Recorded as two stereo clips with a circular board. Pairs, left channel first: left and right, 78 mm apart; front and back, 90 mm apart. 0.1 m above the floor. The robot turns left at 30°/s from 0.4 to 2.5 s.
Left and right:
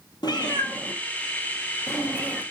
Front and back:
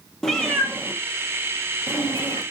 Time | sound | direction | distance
0.2 | a cat meowing | 85° left | 1.1 m